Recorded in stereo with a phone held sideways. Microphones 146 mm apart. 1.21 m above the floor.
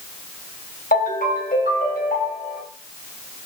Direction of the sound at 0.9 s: 80° left.